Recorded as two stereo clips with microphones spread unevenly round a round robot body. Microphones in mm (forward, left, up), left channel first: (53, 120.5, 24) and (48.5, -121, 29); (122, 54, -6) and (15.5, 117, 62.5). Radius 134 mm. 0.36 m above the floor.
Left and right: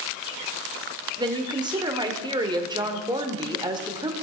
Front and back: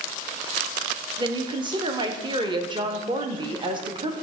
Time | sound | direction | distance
1.2 | a woman speaking | 130° right | 1.2 m